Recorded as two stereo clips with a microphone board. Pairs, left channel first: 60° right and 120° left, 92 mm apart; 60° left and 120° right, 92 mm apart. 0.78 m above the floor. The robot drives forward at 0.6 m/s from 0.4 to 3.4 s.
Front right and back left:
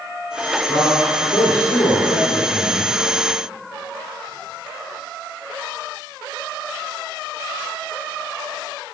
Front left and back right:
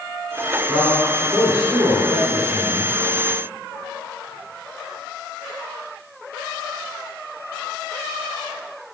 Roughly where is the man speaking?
Ahead right.